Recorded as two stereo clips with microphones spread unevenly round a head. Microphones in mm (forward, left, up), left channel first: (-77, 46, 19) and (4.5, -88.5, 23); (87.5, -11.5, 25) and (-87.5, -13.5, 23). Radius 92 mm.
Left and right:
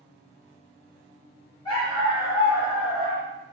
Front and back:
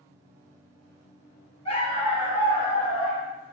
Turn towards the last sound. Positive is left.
turn(degrees=55)